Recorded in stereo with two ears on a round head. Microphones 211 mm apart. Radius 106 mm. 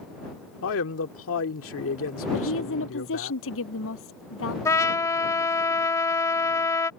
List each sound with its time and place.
0.6 s a man speaking: 60° left (ahead or behind)
2.3 s a woman speaking: 60° left (ahead or behind)
4.7 s a trumpet: 15° left (ahead or behind)